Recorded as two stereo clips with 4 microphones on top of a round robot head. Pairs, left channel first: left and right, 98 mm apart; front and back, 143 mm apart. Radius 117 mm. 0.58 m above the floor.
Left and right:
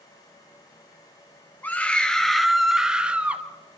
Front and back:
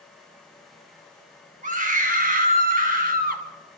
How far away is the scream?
About 2.5 m.